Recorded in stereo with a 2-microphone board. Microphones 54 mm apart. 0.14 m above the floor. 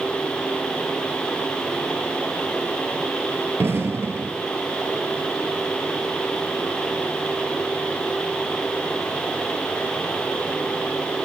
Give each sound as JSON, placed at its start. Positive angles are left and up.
{"t": 3.6, "sound": "an explosion", "side_deg": -50, "distance_m": 0.9}